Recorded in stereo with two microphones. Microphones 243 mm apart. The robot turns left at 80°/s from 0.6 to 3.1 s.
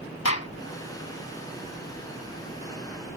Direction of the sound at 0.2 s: 85° left.